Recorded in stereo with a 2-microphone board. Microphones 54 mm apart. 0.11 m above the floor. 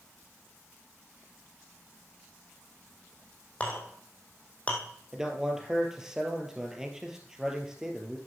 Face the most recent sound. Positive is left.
turn(degrees=-10)  # may be behind; listen again after turning